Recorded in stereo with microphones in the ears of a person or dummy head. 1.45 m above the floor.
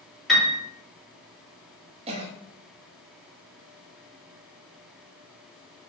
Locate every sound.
0.3 s a piano: centre (ahead or behind), 1.3 m
2.1 s a cough: 35° right (ahead or behind), 0.5 m